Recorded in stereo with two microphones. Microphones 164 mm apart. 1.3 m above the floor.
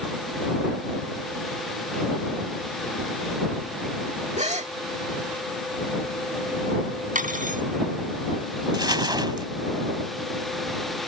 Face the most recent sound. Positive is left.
turn(degrees=-25)  # may be behind; listen again after turning